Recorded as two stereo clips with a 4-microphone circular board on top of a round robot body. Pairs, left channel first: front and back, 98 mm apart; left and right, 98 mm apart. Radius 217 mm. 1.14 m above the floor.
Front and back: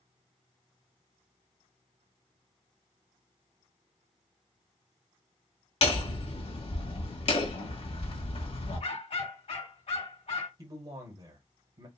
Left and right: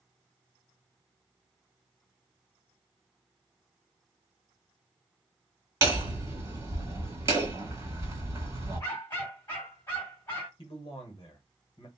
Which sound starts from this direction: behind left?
A man speaking, at 10.6 s.